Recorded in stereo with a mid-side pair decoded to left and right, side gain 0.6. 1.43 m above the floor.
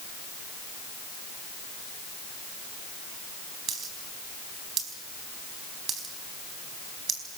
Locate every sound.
3.7 s a dropped coin: 45° right, 4.5 m